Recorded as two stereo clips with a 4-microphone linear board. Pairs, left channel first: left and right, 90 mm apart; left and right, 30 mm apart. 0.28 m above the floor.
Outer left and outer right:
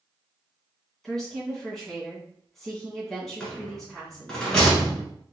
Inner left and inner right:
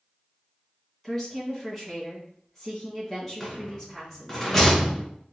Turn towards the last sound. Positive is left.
turn(degrees=5)  # may be behind; listen again after turning